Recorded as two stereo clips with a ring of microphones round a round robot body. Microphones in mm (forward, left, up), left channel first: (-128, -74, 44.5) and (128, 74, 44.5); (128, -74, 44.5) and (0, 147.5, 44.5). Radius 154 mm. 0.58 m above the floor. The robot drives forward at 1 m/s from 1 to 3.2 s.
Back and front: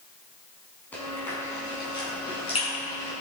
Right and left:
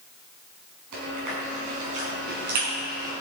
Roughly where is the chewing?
Behind left.